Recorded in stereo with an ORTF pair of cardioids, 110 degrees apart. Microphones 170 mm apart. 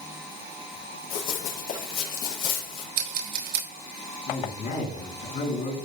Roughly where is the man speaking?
Ahead left.